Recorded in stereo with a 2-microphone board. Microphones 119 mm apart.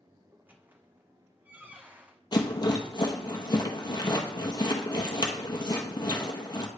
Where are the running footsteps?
I don't hear running footsteps.